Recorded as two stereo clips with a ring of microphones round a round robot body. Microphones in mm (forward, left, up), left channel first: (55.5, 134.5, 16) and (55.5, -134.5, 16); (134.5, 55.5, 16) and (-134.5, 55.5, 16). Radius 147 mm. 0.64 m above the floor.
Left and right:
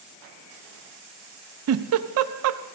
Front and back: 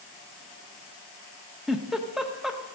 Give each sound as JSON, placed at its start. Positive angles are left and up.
{"t": 1.7, "sound": "a giggle", "azimuth_deg": -90, "distance_m": 0.5}